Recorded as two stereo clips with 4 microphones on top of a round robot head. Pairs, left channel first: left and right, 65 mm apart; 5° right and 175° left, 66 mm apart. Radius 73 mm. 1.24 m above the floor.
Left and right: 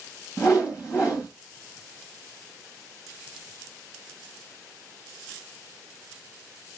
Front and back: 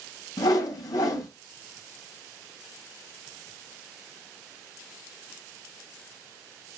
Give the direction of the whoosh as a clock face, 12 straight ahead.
11 o'clock.